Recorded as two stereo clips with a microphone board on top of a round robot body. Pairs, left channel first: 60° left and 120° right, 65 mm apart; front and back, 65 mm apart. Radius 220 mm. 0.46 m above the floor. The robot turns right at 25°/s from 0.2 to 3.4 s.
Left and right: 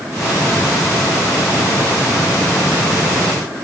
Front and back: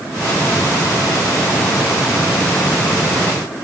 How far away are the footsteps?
I don't hear footsteps.